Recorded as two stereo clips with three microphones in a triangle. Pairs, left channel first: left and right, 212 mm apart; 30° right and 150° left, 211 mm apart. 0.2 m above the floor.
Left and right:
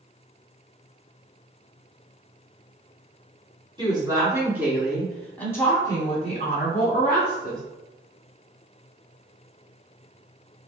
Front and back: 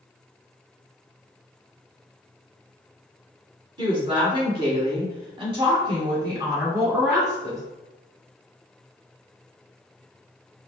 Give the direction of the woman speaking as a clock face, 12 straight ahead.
5 o'clock.